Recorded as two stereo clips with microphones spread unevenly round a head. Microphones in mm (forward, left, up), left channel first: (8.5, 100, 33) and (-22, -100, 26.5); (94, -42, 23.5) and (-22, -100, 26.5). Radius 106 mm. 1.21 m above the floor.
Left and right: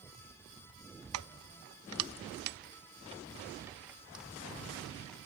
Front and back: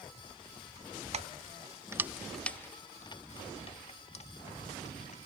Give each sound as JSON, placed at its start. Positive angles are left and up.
{"t": 1.1, "sound": "keys jangling", "azimuth_deg": -115}